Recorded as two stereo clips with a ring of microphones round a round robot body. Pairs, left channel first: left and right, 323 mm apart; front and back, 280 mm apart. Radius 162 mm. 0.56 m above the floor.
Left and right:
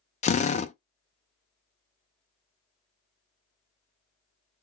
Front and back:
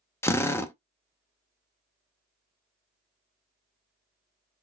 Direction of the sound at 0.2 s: 65° left.